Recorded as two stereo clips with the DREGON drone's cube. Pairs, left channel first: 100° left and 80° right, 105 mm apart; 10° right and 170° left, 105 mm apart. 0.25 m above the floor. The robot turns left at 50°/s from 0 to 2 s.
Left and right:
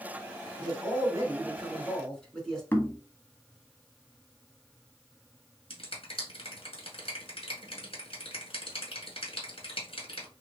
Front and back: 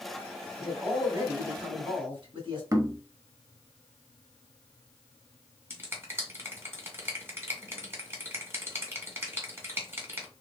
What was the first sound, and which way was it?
A man speaking, 105° right.